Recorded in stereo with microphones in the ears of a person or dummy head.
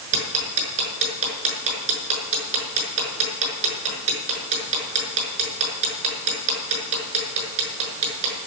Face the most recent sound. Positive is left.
turn(degrees=-40)  # may be behind; listen again after turning